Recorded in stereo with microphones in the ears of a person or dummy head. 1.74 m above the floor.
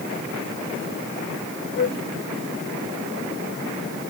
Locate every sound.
1.8 s a flute: 55° left (ahead or behind)